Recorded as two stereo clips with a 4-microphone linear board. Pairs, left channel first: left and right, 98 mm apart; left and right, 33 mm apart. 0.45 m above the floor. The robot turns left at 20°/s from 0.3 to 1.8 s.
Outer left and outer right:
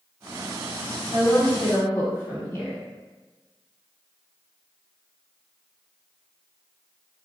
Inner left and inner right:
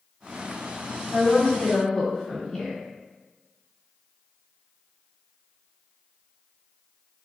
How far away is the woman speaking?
About 1.5 m.